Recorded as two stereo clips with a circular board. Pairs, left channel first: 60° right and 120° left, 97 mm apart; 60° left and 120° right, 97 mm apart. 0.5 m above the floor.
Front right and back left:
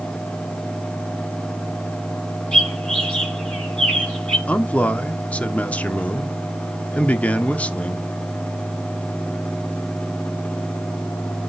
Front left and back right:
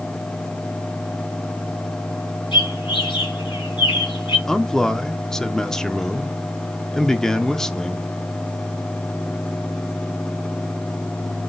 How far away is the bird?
About 3.5 m.